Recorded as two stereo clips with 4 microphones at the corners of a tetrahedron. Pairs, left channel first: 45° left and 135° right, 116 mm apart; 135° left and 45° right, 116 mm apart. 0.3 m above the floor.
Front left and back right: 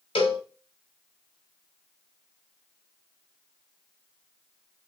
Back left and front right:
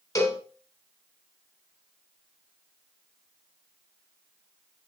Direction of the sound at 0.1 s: 75° left.